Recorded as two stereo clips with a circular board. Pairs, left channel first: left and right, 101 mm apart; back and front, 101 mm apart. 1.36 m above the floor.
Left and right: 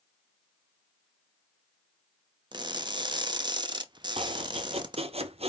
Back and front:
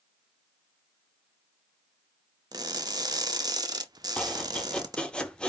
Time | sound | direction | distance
2.5 | crushing | 50° right | 0.6 m
4.2 | chopping | 100° right | 0.6 m